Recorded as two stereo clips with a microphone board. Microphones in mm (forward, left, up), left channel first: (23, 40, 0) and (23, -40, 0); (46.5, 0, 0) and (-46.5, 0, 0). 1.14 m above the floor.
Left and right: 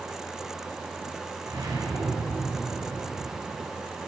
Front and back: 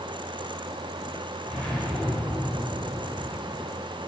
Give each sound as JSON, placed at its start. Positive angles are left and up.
{"t": 1.5, "sound": "a whoosh", "azimuth_deg": -75, "distance_m": 3.0}